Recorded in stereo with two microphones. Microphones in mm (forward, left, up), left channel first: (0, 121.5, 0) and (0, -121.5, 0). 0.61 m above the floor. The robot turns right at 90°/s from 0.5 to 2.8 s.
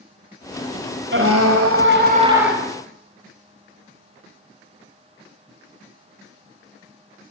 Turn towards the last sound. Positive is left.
turn(degrees=25)